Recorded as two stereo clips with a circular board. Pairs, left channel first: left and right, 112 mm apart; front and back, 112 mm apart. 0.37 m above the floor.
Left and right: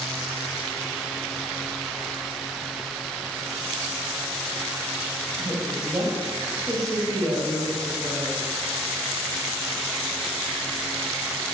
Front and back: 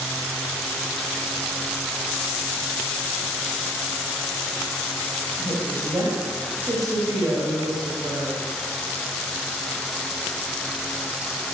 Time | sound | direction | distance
5.4 | a woman speaking | 135° right | 2 m